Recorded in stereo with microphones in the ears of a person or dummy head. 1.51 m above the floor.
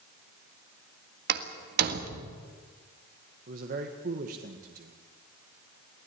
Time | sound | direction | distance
1.3 | a door slam | 60° right (ahead or behind) | 1.8 m
3.5 | a man speaking | 50° right (ahead or behind) | 1.7 m